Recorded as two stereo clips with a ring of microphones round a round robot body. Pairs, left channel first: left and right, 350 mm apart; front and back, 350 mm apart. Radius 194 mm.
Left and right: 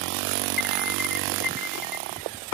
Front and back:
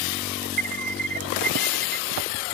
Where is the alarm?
135° left.